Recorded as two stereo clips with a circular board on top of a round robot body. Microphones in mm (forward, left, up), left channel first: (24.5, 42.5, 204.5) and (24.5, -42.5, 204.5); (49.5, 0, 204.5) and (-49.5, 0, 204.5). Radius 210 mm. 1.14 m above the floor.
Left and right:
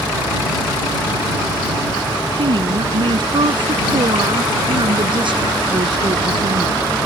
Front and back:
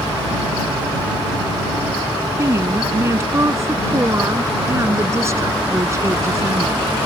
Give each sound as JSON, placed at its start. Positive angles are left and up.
{"t": 2.4, "sound": "a woman speaking", "azimuth_deg": -115}